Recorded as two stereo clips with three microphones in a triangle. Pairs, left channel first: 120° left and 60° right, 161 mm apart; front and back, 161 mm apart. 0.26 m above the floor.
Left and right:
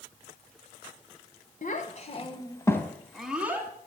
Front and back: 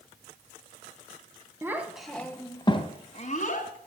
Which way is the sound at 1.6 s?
110° left.